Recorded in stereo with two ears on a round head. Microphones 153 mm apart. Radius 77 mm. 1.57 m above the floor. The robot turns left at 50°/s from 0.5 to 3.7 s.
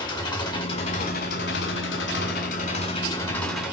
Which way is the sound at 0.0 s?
155° left.